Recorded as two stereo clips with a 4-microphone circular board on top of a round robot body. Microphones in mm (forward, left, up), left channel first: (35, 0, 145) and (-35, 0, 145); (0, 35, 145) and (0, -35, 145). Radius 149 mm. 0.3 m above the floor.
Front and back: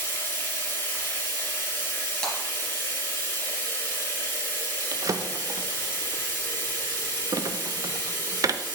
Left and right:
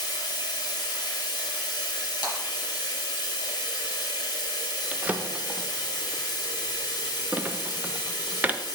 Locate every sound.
0.0 s running water: 65° left, 2.0 m
2.2 s breaking glass: 85° left, 3 m
4.9 s a drawer: 155° right, 0.6 m